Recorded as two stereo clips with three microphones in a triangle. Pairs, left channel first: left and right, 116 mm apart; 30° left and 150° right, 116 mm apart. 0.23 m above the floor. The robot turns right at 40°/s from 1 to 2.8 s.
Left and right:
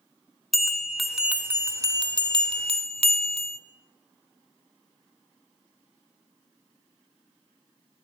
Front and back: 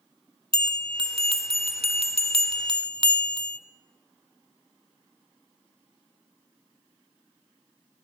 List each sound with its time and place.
0.5 s a bell: straight behind, 1.1 m; by 3.6 s 110° right, 1.1 m